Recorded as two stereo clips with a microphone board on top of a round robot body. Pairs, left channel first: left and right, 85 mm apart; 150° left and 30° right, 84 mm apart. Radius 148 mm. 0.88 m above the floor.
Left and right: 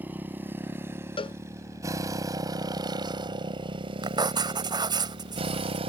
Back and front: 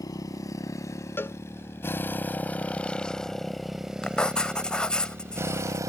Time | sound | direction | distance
0.0 | a motorcycle | 160° right | ?
1.2 | a cowbell | 85° left | ?
4.0 | writing | 130° right | ?